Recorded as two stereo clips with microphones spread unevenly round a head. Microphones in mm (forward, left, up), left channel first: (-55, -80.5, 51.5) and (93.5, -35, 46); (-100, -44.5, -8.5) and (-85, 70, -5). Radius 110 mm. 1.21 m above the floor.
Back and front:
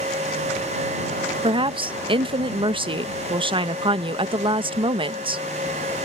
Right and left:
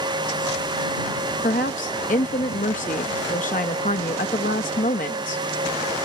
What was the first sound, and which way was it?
A woman speaking, 40° right.